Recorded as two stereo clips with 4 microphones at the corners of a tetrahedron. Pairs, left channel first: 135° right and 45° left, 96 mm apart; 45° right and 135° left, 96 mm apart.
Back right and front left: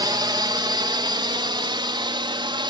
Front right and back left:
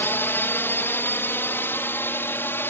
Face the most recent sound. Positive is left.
turn(degrees=20)